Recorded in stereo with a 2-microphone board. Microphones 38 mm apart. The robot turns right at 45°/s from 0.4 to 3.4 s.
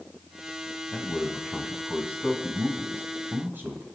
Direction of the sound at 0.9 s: 155° left.